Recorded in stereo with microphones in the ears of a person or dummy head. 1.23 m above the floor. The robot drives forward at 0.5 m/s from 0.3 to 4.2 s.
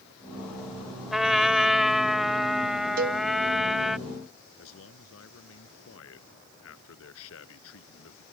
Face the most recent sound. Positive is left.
turn(degrees=75)  # may be behind; listen again after turning